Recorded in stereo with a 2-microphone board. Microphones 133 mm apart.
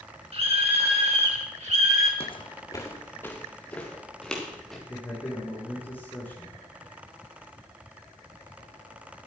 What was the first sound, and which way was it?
A scream, 45° right (ahead or behind).